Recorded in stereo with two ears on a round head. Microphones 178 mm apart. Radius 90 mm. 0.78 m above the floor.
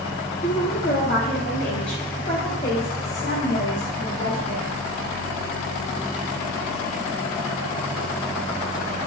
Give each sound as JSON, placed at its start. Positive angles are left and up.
{"t": 0.4, "sound": "a woman speaking", "side_deg": 40, "distance_m": 0.9}